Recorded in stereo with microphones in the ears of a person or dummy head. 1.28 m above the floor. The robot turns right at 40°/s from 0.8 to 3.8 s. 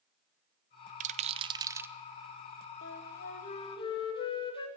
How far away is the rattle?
About 0.8 m.